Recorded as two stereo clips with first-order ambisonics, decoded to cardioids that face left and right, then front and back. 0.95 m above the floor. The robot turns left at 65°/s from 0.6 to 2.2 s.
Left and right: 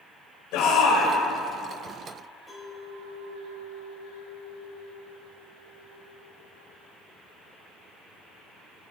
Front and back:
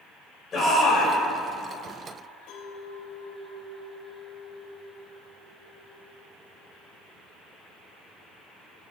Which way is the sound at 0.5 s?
65° left.